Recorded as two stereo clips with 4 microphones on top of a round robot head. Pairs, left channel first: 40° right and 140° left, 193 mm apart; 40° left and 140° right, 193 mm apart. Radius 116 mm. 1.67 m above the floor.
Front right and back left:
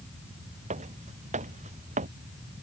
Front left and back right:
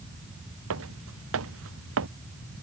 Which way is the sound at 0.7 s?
160° right.